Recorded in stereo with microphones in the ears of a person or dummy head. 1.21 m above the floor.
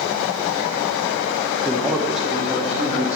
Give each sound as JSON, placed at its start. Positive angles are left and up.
{"t": 1.6, "sound": "a man speaking", "side_deg": 5, "distance_m": 0.8}